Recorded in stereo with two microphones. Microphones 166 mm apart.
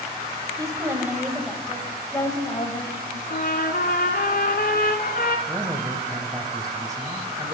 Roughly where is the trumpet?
Left.